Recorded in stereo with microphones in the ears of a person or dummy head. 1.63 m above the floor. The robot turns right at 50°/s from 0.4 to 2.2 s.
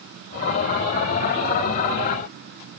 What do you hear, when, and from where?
Only background noise.